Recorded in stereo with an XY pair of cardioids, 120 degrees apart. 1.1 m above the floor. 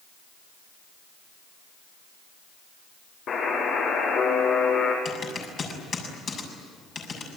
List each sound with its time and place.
3.3 s a buzzer: 55° left, 8 m
5.0 s typing on a keyboard: 40° left, 7 m